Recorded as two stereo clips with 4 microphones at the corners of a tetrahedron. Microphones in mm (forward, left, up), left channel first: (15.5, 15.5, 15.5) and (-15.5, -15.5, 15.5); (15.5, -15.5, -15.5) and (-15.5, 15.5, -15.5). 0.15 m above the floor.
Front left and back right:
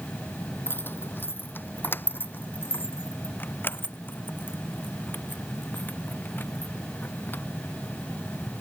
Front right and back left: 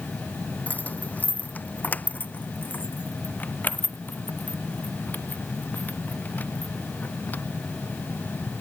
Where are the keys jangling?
10° left; by 8.4 s 5° left.